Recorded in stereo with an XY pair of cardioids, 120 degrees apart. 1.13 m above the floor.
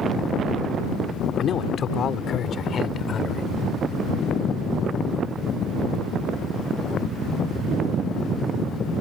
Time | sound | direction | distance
1.4 | a man speaking | 45° left | ?